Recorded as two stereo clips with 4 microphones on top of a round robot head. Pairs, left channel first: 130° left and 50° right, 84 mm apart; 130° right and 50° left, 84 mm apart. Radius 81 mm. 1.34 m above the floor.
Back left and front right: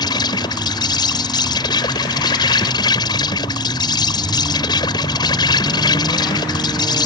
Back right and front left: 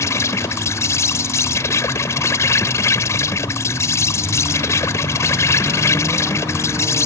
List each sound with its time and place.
0.0 s an insect: 170° left